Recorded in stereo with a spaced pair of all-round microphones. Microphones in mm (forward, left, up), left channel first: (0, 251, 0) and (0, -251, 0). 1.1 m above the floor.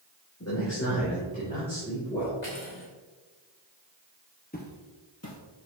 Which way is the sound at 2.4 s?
85° left.